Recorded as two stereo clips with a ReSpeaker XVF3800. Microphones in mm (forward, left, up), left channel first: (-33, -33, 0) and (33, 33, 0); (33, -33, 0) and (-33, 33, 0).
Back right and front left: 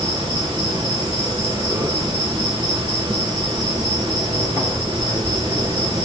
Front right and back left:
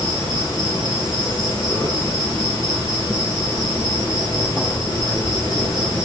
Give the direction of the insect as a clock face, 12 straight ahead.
12 o'clock.